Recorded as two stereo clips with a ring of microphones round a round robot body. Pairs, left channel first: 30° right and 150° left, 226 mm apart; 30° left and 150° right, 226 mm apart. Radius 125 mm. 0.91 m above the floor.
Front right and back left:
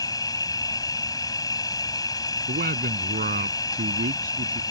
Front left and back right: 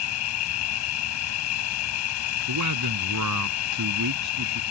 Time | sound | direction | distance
0.0 | an insect | 45° left | ?
2.5 | a man speaking | 155° right | ?